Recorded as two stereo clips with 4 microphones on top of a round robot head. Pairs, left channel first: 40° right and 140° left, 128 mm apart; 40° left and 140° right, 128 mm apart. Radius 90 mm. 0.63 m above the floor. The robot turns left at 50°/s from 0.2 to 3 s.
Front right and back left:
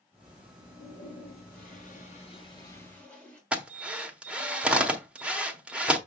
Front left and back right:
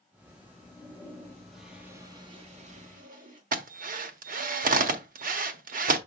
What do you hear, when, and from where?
0.6 s a toilet flushing: 5° right, 3 m; by 3.4 s 120° right, 3 m
3.5 s a drill: 140° right, 1.2 m